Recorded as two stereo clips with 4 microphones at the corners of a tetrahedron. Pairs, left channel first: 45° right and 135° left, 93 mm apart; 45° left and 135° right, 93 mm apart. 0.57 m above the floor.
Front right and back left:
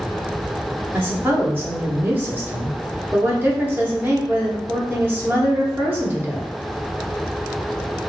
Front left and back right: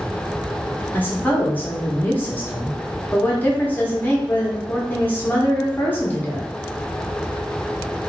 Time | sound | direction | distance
0.9 | a woman speaking | 95° left | 0.8 m